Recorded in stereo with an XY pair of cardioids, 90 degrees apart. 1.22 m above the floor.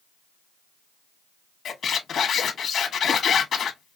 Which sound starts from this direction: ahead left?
A squeak, at 1.6 s.